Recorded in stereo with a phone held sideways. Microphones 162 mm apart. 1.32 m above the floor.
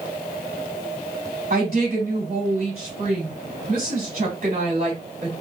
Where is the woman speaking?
60° right (ahead or behind), 2 m.